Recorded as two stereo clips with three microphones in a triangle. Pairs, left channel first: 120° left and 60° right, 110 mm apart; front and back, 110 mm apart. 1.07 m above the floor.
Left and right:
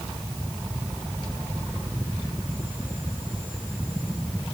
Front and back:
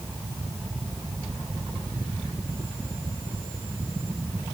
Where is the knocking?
No knocking in this recording.